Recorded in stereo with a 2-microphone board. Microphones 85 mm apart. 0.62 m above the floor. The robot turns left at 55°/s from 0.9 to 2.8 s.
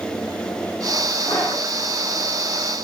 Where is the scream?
20° left (ahead or behind), 8 m; by 1.7 s 45° left (ahead or behind), 8 m.